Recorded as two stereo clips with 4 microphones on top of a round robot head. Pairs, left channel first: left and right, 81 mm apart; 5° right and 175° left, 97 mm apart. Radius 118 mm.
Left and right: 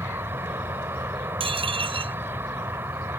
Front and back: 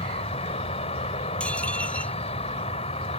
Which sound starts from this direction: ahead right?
An insect, at 0.0 s.